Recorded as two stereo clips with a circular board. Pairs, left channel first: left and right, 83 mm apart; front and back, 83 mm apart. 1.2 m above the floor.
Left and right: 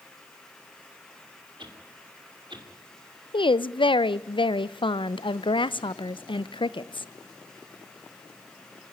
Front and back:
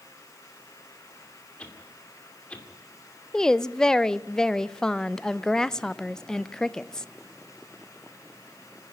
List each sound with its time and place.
1.6 s a whoosh: 75° right, 2.5 m
3.3 s a woman speaking: 85° left, 0.5 m